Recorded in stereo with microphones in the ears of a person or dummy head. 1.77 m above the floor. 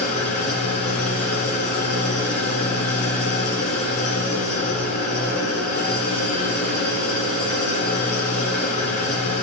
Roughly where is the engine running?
Left.